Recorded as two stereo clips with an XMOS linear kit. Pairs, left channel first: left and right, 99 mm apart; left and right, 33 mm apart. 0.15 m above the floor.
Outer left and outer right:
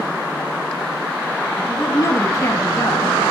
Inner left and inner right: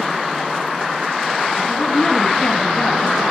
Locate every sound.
1.7 s a woman speaking: 30° left (ahead or behind), 1.7 m